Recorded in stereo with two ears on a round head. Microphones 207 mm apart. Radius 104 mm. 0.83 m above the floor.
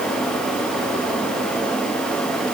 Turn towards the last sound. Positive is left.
No sound to turn to.